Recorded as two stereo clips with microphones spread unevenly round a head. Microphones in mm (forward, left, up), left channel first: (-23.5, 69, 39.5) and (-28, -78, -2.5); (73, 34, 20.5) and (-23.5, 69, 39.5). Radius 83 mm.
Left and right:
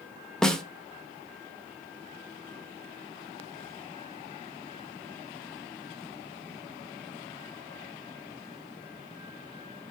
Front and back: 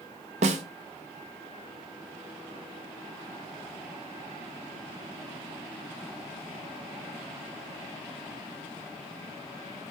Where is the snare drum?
170° left, 0.6 m.